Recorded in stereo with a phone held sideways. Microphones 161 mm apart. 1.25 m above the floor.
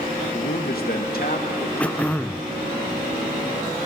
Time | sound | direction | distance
0.3 | a man speaking | 65° left (ahead or behind) | 1.6 m
1.8 | throat clearing | 10° left (ahead or behind) | 0.5 m